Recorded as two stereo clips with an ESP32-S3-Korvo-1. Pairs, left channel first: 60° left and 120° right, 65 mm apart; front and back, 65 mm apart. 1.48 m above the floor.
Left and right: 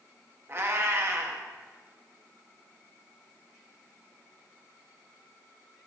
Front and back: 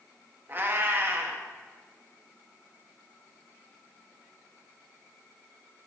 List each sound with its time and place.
0.5 s a cat meowing: 140° right, 0.9 m